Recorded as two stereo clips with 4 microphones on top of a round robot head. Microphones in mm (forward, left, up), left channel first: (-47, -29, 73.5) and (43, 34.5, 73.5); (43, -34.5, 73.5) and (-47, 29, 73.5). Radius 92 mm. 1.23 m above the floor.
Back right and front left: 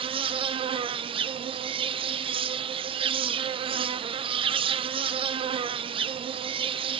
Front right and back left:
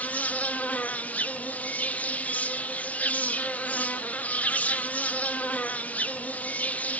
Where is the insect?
40° left, 0.8 m.